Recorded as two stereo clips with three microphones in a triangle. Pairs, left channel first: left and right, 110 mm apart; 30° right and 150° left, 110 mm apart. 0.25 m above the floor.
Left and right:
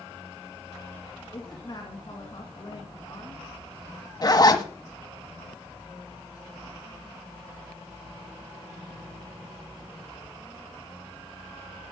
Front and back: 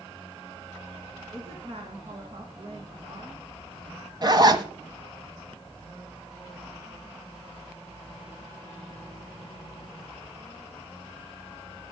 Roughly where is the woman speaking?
Behind left.